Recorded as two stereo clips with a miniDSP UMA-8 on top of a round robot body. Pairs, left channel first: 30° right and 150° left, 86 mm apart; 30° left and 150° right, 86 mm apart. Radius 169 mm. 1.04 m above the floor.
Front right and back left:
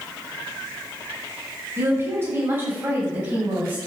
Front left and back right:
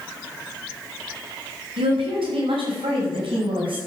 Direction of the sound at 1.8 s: 150° right.